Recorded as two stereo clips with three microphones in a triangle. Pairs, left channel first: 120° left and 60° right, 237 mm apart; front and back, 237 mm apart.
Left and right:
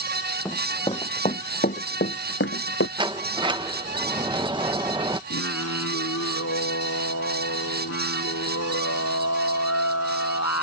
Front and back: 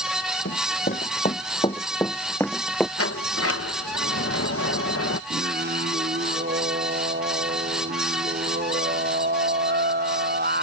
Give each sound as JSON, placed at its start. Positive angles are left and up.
{"t": 0.5, "sound": "running footsteps", "azimuth_deg": 40}
{"t": 3.0, "sound": "a sliding door", "azimuth_deg": 10}
{"t": 5.3, "sound": "singing", "azimuth_deg": 130}